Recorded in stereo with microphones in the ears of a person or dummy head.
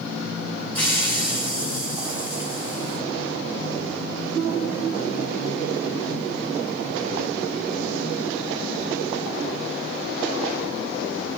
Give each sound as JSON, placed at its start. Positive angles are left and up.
{"t": 0.8, "sound": "a hiss", "side_deg": 20, "distance_m": 3.0}